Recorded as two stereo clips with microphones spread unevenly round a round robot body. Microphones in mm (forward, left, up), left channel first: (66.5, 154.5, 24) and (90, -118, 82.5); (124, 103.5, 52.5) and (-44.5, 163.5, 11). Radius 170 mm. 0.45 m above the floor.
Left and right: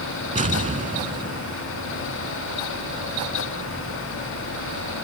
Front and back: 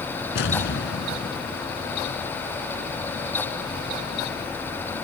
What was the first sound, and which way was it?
An explosion, 20° right.